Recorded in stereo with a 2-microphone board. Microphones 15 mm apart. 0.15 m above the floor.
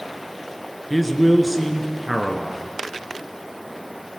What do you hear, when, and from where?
0.9 s a man speaking: centre (ahead or behind), 2 m